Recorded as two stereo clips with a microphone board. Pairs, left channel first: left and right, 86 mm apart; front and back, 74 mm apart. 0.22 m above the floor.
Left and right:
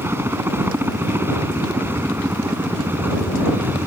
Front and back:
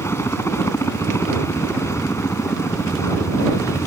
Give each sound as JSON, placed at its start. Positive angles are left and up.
{"t": 0.0, "sound": "a helicopter", "azimuth_deg": -35}